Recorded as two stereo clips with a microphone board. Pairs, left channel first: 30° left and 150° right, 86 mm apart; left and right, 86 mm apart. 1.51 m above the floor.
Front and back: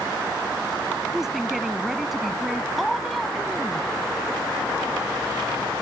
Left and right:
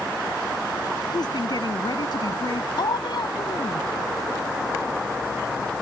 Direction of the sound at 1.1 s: 125° left.